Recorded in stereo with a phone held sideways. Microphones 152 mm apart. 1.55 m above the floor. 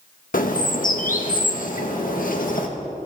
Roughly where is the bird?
Left.